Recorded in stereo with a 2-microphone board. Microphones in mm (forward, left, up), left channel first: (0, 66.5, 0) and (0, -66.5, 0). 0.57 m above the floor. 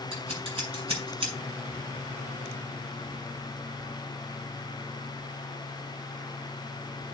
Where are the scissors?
40° right (ahead or behind), 6 m.